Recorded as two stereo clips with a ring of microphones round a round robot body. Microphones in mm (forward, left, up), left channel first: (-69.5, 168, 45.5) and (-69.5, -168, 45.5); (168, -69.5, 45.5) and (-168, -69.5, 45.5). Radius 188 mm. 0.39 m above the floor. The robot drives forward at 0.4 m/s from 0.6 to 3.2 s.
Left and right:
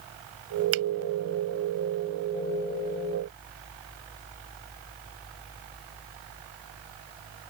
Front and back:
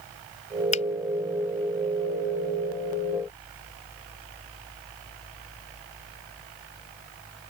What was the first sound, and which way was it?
A finger snap, 70° right.